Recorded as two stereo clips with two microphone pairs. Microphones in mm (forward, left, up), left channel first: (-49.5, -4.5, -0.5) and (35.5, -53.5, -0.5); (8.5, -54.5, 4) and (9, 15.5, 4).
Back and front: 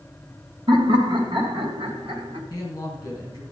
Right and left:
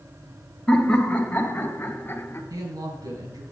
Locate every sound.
0.7 s laughter: 10° right, 2 m; by 2.4 s 40° right, 2.5 m
2.5 s a woman speaking: 95° left, 4 m